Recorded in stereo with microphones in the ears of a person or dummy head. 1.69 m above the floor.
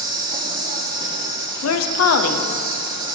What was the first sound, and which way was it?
An insect, 25° right (ahead or behind).